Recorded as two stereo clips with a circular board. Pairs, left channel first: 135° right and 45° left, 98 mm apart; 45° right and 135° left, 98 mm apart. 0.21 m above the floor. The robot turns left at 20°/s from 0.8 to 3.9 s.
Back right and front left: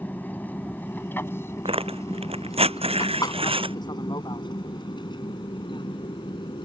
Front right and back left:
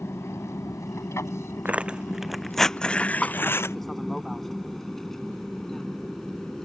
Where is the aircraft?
80° right; by 6.7 s 125° right.